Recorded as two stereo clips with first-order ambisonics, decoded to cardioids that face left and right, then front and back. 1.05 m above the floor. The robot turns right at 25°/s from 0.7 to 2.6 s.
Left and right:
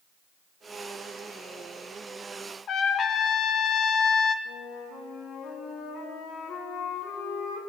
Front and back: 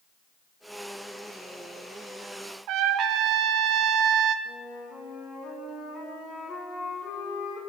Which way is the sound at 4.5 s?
50° left.